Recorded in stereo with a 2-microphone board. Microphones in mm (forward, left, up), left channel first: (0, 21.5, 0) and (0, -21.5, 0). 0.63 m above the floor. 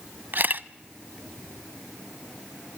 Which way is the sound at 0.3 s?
50° right (ahead or behind).